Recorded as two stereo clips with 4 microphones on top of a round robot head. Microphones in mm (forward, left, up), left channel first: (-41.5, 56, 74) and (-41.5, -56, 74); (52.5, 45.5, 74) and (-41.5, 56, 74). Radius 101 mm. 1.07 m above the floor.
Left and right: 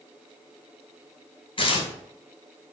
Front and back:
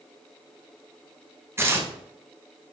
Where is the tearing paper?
115° left, 1.4 m.